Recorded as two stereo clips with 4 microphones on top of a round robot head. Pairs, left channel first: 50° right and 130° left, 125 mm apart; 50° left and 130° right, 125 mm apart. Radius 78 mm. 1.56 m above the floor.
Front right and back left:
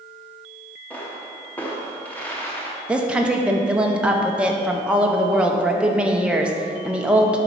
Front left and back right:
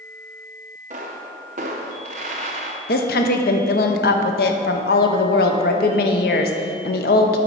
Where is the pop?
125° right, 0.6 m.